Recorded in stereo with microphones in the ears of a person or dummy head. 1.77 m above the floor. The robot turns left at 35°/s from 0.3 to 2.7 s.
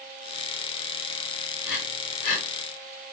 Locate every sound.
1.6 s breathing: 45° left (ahead or behind), 2.0 m